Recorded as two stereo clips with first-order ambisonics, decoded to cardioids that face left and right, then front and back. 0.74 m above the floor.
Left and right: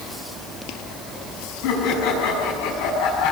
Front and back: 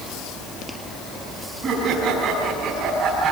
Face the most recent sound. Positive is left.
turn(degrees=110)